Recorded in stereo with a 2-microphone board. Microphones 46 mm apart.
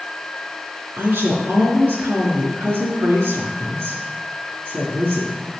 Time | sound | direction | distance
1.0 | a woman speaking | 55° right (ahead or behind) | 3 m